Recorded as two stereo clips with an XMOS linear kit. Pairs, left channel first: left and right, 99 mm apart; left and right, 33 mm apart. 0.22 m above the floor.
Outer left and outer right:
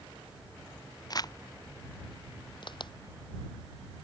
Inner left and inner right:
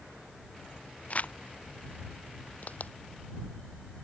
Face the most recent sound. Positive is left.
turn(degrees=50)  # may be behind; listen again after turning